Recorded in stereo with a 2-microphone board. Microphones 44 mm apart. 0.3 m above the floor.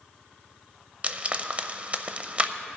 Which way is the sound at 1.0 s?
30° right (ahead or behind).